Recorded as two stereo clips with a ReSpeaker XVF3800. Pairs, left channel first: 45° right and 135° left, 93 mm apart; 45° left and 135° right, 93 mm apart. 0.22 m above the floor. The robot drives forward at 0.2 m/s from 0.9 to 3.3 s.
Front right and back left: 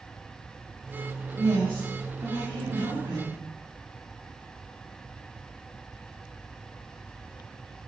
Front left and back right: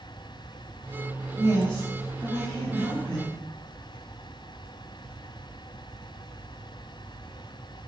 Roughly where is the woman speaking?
Left.